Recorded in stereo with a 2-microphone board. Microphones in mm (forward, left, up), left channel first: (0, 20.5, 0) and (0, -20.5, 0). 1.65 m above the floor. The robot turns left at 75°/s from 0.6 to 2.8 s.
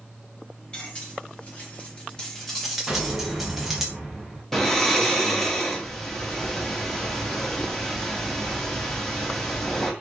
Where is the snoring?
10° left (ahead or behind), 0.6 m.